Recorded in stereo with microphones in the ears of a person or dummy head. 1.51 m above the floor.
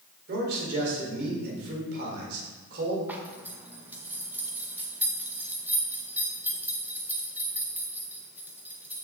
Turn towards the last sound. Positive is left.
turn(degrees=-5)  # may be behind; listen again after turning